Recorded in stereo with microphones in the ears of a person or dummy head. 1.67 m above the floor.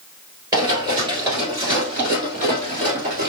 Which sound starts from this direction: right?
Running footsteps, at 0.5 s.